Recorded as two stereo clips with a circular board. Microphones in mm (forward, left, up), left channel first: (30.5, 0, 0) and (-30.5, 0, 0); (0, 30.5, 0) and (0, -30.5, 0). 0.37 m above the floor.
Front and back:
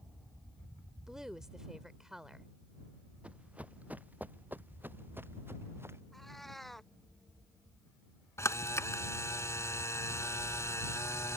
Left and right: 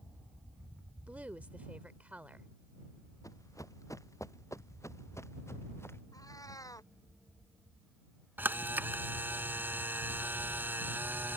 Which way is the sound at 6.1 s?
85° left.